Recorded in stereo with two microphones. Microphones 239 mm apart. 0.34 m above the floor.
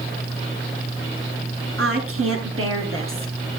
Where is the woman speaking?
75° right (ahead or behind), 5.5 m; by 3.3 s 65° right (ahead or behind), 5 m.